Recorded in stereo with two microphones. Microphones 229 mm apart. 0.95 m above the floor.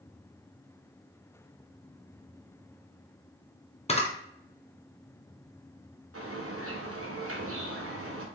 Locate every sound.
3.9 s a camera shutter: 30° left (ahead or behind), 0.6 m
6.1 s a bird: 75° right (ahead or behind), 0.7 m